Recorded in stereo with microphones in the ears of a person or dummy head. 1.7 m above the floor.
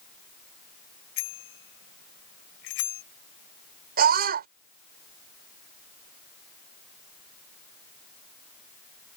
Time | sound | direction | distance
1.2 | a bicycle bell | 80° left | ?
4.0 | a scream | 45° right (ahead or behind) | ?